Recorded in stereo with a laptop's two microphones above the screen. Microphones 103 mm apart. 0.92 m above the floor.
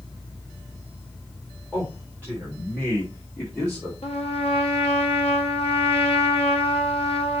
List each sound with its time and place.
1.7 s a man speaking: 15° left (ahead or behind), 3.5 m; by 3.9 s 20° left (ahead or behind), 2 m
4.0 s a trumpet: 75° left (ahead or behind), 1.8 m